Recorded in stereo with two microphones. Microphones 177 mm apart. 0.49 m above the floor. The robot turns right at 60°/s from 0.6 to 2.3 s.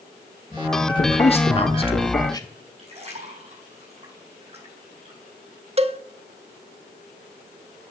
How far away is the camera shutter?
I don't hear a camera shutter.